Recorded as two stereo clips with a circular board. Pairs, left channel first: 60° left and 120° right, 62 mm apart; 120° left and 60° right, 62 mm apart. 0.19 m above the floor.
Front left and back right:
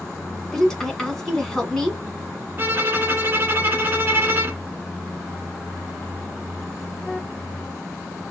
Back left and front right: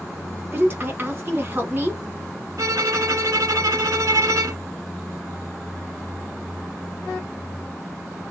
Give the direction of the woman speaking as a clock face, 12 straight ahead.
1 o'clock.